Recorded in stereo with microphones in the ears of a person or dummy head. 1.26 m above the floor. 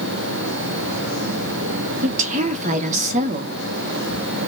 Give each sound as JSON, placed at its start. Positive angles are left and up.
{"t": 2.0, "sound": "a woman speaking", "side_deg": -40, "distance_m": 0.6}